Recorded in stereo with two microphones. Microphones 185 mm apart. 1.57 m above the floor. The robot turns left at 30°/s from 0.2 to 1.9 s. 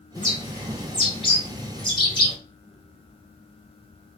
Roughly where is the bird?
Left.